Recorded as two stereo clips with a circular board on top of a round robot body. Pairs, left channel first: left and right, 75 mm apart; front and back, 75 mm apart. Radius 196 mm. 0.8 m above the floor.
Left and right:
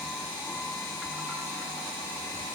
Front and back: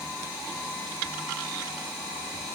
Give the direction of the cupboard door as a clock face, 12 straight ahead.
I don't hear a cupboard door.